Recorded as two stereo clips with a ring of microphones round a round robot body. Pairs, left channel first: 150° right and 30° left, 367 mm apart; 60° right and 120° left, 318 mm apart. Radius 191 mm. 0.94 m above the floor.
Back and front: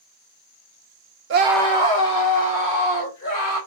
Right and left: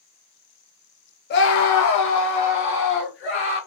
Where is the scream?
10° right, 0.6 m; by 3.6 s 115° right, 3 m.